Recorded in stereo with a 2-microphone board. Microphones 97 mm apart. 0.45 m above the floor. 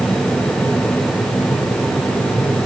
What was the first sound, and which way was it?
Only background noise.